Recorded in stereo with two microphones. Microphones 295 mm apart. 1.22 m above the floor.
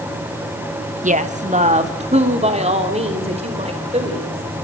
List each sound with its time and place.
1.0 s a woman speaking: 25° right (ahead or behind), 1.1 m; by 4.6 s 20° right (ahead or behind), 6 m